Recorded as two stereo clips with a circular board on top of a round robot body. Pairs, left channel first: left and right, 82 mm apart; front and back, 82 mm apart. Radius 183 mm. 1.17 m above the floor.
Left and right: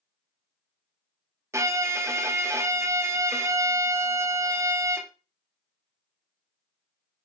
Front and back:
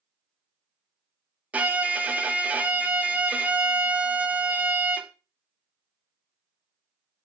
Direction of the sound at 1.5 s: 115° right.